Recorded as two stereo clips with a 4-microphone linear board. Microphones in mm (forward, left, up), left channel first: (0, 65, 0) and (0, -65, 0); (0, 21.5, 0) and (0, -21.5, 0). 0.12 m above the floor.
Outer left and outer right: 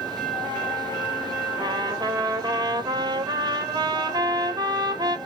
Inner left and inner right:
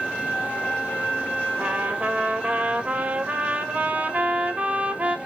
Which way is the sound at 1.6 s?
35° right (ahead or behind).